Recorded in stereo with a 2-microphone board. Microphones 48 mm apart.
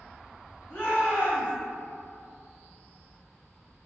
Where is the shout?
20° left (ahead or behind), 1.8 m.